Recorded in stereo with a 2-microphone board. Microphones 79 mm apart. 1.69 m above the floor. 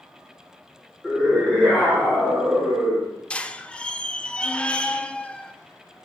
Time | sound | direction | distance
1.0 | a scream | 10° left (ahead or behind) | 6 m
3.3 | a squeak | 15° left (ahead or behind) | 0.6 m